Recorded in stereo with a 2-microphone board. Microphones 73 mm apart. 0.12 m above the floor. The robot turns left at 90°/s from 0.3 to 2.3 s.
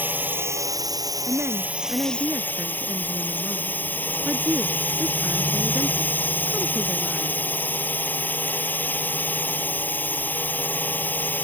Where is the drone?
30° right; by 11.4 s 150° left.